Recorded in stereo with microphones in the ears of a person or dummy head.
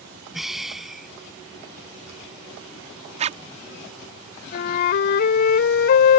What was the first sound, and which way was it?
Breathing, 5° right (ahead or behind).